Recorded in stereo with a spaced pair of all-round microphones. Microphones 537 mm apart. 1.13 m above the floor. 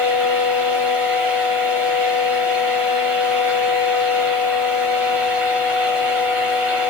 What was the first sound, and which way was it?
A fan, 70° right (ahead or behind).